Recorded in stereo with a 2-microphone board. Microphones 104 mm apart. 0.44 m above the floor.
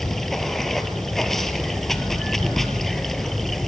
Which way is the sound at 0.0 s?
5° left (ahead or behind).